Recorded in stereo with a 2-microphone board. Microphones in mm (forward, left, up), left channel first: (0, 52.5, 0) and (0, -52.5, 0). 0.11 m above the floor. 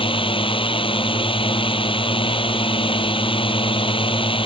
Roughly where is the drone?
Left.